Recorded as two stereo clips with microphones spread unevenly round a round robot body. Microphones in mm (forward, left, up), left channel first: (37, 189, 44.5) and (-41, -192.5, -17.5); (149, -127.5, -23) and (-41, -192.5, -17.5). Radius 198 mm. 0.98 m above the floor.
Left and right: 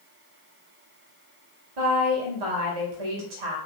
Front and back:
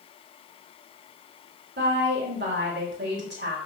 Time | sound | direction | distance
1.8 | a woman speaking | 130° right | 3 m